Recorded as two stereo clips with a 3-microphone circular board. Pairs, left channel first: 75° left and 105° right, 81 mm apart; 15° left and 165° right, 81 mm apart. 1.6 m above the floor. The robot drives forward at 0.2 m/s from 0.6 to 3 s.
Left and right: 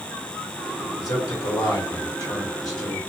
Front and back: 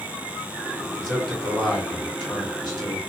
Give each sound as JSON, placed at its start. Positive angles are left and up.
{"t": 1.0, "sound": "a man speaking", "azimuth_deg": 100, "distance_m": 1.4}